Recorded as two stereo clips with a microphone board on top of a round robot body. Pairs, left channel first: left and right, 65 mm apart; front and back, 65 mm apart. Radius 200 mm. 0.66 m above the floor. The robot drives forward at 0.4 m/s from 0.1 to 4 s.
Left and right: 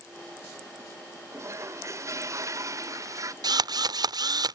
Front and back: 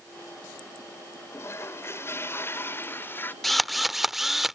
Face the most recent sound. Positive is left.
turn(degrees=-90)